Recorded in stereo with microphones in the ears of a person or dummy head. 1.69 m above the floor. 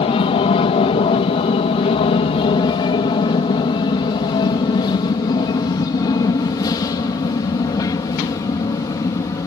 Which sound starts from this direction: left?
An aircraft, at 0.0 s.